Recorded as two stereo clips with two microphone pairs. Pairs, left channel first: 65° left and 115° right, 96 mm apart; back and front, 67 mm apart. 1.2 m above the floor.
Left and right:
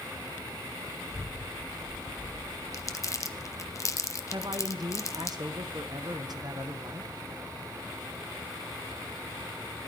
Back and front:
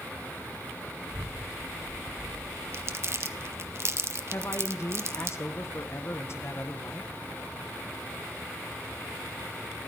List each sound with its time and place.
1.1 s a child speaking: 20° right, 5 m
2.7 s crumpling: 25° left, 0.7 m
4.3 s a man speaking: 145° right, 1.1 m